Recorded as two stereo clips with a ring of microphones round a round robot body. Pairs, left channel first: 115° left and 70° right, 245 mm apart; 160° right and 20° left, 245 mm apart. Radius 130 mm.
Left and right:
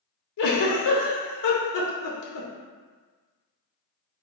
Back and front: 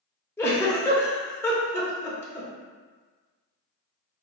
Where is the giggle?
120° left, 0.8 m.